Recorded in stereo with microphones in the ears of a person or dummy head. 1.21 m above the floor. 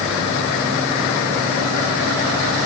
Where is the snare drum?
I don't hear a snare drum.